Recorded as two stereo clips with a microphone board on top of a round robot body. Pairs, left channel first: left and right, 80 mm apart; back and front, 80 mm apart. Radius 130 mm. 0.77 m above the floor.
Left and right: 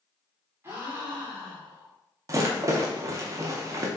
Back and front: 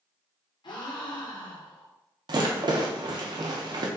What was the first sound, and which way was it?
A gasp, 150° right.